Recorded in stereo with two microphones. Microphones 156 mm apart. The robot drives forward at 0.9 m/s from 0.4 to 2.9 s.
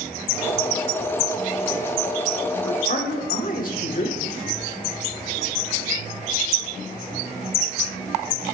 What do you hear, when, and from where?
2.6 s a man speaking: 60° left (ahead or behind), 1.7 m; by 4.2 s 65° left (ahead or behind), 1.6 m